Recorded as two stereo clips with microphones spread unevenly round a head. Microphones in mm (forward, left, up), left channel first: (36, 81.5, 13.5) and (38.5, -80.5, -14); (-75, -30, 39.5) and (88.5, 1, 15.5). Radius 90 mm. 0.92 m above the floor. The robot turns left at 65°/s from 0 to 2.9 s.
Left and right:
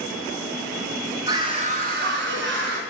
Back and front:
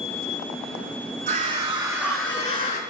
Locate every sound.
1.3 s a scream: 20° right, 1.7 m; by 2.8 s 120° right, 1.7 m